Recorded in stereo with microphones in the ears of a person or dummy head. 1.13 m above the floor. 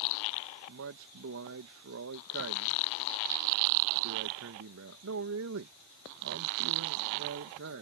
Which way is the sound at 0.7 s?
65° right (ahead or behind).